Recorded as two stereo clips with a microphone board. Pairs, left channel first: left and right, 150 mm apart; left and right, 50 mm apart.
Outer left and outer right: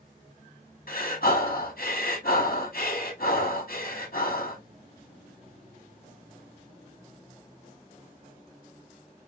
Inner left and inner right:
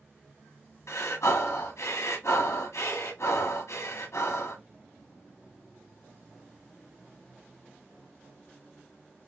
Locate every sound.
0.9 s breathing: 85° left, 1.7 m